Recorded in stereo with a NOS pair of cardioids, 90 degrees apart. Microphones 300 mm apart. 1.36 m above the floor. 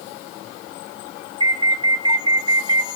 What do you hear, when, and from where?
1.4 s an alarm: 15° right, 3.5 m